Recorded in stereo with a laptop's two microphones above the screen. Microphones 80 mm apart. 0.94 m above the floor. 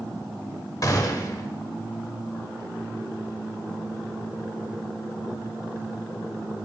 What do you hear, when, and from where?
0.8 s a gunshot: 45° left (ahead or behind), 0.9 m